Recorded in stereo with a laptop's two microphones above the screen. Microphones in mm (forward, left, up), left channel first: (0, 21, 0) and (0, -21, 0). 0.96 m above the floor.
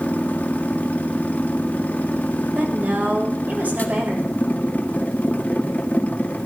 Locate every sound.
0.0 s a machine running: 35° left (ahead or behind), 1.4 m
2.5 s a woman speaking: 45° right (ahead or behind), 4 m